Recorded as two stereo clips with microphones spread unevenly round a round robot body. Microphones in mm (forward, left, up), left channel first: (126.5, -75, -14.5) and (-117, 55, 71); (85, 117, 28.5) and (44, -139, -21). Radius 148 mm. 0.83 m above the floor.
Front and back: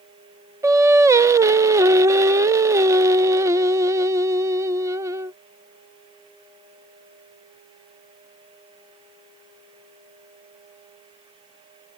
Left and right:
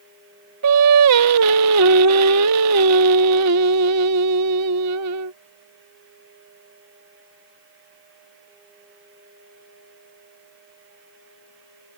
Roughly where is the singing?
Behind right.